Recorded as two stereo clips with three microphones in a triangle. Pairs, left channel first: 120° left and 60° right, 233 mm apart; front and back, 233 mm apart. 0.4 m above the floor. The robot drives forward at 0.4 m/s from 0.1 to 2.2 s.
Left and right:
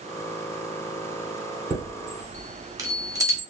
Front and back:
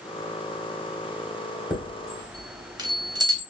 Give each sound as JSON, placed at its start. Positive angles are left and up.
{"t": 1.7, "sound": "a chime", "azimuth_deg": -105, "distance_m": 1.1}